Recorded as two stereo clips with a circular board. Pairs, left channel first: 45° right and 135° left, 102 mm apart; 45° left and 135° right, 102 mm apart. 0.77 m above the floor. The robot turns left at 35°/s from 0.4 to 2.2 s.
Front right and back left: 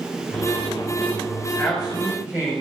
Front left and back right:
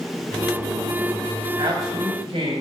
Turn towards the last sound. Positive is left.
turn(degrees=-150)